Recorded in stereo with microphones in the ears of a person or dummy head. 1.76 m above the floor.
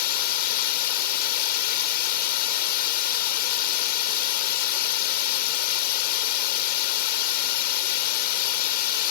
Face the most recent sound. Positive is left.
turn(degrees=55)  # may be behind; listen again after turning